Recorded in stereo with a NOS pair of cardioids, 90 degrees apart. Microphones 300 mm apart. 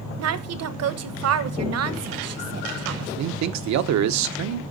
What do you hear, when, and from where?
0.2 s a woman speaking: 55° right, 1.1 m
3.2 s a man speaking: 70° right, 0.9 m